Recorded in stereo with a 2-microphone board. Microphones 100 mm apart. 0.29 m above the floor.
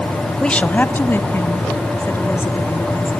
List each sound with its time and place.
0.4 s a woman speaking: 10° left (ahead or behind), 1.0 m; by 3.1 s 25° left (ahead or behind), 5 m